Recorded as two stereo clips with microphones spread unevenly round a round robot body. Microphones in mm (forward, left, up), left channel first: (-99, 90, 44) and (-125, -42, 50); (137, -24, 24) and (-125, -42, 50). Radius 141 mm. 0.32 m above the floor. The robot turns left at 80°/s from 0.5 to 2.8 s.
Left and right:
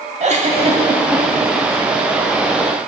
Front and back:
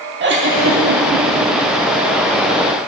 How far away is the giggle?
About 1.3 m.